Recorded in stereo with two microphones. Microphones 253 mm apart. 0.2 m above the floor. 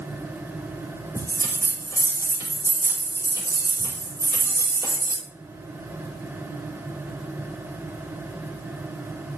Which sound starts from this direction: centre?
A bell, at 1.1 s.